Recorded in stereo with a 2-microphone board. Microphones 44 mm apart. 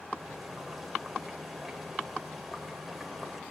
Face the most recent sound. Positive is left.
turn(degrees=0)  # may be behind; listen again after turning